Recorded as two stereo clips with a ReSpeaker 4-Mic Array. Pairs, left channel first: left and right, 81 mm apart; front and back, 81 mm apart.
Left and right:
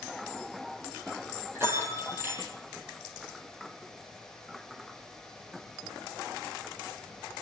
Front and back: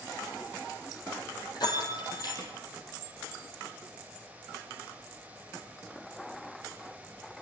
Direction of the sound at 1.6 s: 30° right.